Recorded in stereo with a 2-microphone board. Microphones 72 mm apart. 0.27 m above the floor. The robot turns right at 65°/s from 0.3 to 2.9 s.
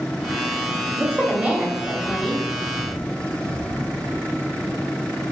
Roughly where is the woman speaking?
Centre.